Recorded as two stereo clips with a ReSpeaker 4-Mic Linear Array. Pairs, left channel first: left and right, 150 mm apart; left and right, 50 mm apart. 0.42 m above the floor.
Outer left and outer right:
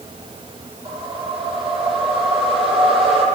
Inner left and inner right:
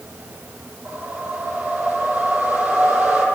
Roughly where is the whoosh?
Right.